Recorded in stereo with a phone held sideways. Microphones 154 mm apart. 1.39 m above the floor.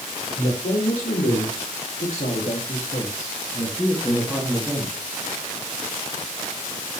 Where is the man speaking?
80° left, 4 m; by 5.0 s 5° right (ahead or behind), 3 m.